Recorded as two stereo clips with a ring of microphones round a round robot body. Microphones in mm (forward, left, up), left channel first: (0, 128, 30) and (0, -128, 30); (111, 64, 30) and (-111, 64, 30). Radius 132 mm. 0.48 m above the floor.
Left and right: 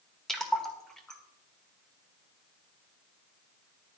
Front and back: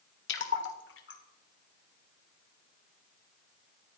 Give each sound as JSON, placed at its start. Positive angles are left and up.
{"t": 0.3, "sound": "a splash", "azimuth_deg": 0, "distance_m": 1.8}